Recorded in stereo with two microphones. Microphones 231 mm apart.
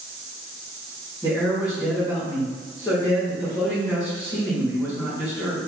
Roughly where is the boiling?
No boiling in this recording.